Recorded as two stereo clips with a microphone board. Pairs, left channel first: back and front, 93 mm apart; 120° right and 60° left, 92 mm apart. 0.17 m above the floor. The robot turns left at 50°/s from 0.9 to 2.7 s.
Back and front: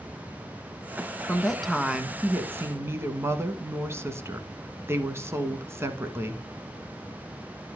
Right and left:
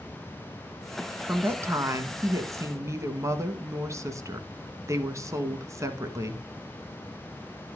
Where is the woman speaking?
110° left, 1.2 m; by 6.4 s 40° left, 1.2 m.